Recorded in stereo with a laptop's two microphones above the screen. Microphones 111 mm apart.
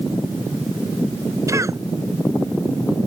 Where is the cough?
25° right (ahead or behind).